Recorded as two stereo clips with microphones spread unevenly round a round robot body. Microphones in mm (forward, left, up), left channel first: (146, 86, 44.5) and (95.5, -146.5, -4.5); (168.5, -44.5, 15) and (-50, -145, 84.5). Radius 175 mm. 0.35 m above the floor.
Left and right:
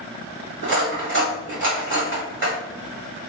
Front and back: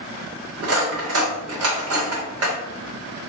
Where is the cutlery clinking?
125° right, 0.8 m.